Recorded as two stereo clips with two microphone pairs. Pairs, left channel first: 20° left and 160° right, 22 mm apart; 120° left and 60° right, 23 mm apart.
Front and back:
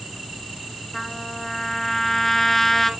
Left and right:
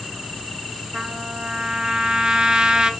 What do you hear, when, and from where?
0.9 s a trumpet: 50° right, 0.6 m